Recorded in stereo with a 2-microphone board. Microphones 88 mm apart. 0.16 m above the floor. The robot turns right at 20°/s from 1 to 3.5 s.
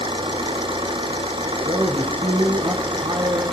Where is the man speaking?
125° right, 5 m; by 3.4 s 90° right, 5 m.